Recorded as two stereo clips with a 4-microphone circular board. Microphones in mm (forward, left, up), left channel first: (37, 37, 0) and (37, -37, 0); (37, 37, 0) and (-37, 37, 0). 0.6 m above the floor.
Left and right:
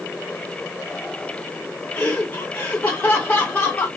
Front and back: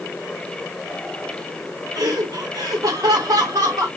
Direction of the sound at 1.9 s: 155° left.